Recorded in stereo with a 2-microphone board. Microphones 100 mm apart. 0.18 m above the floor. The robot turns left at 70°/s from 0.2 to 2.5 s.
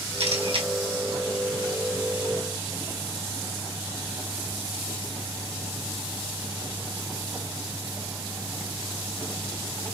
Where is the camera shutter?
85° right, 1.1 m; by 0.7 s 55° right (ahead or behind), 1.1 m.